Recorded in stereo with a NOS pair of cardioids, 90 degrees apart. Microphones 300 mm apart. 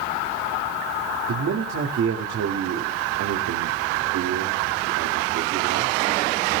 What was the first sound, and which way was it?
A man speaking, 60° right.